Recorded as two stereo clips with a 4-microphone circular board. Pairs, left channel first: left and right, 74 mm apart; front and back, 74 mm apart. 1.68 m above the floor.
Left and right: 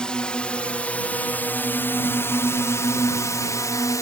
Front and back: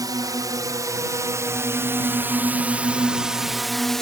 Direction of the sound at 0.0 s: 165° left.